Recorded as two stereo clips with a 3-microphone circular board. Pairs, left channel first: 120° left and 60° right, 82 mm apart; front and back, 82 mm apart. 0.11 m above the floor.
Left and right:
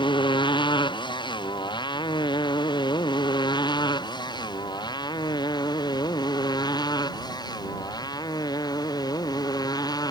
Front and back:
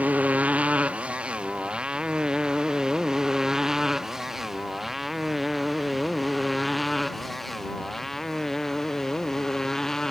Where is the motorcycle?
110° left; by 10.1 s 85° left.